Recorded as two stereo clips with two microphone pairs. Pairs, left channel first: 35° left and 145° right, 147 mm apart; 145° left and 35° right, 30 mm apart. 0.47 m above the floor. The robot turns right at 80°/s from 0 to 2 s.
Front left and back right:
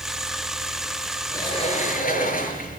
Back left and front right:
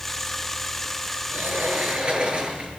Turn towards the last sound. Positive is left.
turn(degrees=20)